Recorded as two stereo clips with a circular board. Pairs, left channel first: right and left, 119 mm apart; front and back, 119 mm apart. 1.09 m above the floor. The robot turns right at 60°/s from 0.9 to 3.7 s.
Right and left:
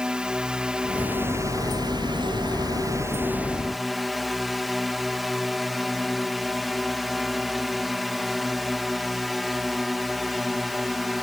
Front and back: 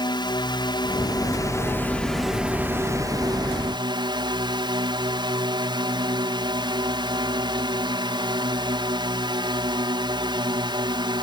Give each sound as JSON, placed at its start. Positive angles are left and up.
{"t": 0.0, "sound": "a drone", "azimuth_deg": 10}